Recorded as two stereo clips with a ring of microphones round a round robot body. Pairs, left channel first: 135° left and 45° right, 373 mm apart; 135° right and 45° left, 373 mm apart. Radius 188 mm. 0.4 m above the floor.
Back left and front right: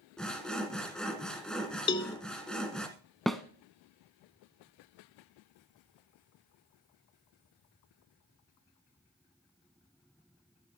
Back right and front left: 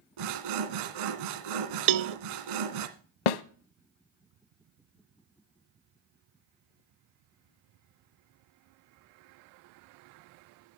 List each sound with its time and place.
0.2 s sawing: 45° left, 1.2 m
1.9 s a cowbell: 60° left, 0.5 m
3.3 s a snare drum: 135° right, 0.6 m